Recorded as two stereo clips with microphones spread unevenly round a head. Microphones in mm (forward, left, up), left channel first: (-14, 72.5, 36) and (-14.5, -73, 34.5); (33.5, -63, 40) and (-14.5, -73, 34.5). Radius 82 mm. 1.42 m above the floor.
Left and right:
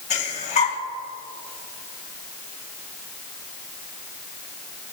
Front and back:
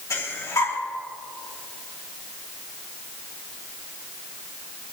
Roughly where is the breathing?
Ahead left.